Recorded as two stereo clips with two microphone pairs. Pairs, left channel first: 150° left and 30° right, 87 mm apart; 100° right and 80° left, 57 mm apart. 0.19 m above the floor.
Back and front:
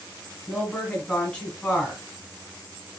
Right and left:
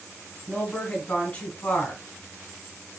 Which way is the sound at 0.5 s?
145° right.